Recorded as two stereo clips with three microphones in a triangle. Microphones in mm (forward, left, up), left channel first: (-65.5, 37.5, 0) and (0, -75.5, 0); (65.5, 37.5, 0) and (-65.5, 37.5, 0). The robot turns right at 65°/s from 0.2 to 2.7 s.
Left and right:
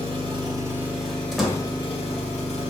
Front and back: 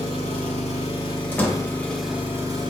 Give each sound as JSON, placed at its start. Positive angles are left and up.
{"t": 0.0, "sound": "an engine running", "azimuth_deg": -30, "distance_m": 0.7}
{"t": 1.3, "sound": "a door slam", "azimuth_deg": 25, "distance_m": 0.6}